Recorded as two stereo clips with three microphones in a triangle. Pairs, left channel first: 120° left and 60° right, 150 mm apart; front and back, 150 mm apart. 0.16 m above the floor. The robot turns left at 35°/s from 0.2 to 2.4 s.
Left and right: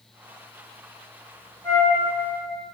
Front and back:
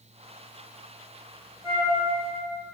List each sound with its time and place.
1.6 s a flute: 170° right, 1.7 m; by 1.9 s straight behind, 1.7 m